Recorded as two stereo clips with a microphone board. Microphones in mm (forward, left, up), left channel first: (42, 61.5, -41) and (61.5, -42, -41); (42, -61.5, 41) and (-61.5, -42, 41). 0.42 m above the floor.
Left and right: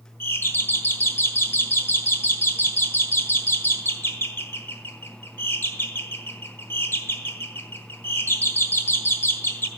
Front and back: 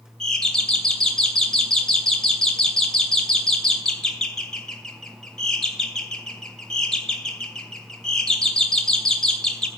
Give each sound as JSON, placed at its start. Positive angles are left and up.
{"t": 0.2, "sound": "a doorbell", "azimuth_deg": 65, "distance_m": 1.2}